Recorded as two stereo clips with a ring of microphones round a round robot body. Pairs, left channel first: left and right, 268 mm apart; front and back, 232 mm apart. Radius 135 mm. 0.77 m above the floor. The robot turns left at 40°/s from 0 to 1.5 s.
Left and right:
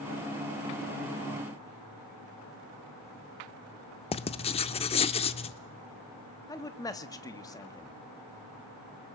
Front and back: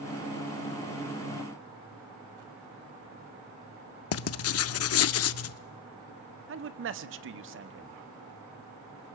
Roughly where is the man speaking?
Behind.